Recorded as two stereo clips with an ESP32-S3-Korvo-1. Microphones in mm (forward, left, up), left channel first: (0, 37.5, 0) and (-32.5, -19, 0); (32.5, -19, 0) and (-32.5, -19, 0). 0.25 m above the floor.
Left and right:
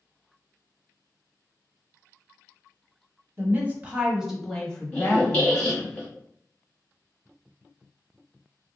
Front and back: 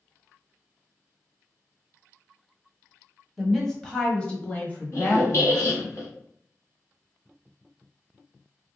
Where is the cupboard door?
No cupboard door in this recording.